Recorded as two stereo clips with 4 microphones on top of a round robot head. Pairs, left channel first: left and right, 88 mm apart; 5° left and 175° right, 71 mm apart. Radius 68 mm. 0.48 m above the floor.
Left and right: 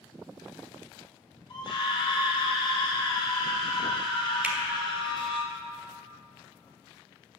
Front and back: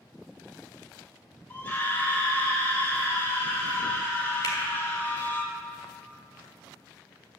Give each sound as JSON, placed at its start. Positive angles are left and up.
{"t": 1.5, "sound": "a scream", "azimuth_deg": 65, "distance_m": 2.5}
{"t": 4.4, "sound": "a finger snap", "azimuth_deg": -15, "distance_m": 1.6}